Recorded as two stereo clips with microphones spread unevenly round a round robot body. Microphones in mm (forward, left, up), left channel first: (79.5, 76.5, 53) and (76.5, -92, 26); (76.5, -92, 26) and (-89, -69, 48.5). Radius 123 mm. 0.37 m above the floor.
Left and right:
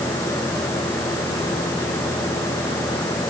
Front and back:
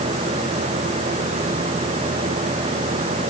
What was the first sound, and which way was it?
Only background noise.